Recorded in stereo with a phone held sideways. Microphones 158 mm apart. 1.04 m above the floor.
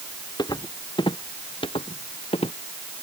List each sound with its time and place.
0.4 s footsteps: 25° left (ahead or behind); by 2.5 s 40° left (ahead or behind)